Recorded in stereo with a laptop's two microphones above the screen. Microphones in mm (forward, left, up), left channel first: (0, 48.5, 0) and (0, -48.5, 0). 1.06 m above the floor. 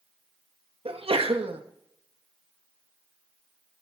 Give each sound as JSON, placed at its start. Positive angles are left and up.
{"t": 0.8, "sound": "a sneeze", "side_deg": -75, "distance_m": 1.2}